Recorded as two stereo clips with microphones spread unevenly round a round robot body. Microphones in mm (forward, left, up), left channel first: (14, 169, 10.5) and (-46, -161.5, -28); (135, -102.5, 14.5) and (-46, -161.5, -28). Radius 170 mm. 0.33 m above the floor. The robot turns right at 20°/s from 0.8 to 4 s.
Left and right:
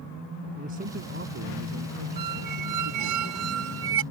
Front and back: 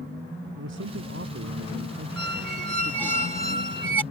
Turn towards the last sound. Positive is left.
turn(degrees=-50)